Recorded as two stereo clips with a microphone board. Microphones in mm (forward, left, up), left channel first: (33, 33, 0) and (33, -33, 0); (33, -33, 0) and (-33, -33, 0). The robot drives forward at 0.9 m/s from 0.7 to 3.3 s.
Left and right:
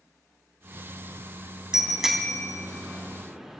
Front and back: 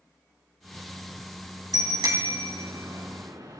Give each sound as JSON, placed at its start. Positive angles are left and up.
{"t": 1.7, "sound": "a bicycle bell", "azimuth_deg": -170, "distance_m": 2.5}